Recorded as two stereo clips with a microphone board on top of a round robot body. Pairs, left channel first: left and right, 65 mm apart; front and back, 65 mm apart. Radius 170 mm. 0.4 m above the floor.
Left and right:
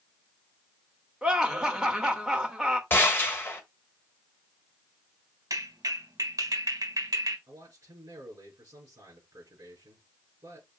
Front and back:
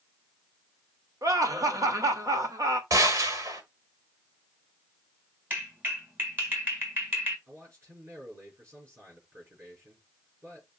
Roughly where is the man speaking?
Behind right.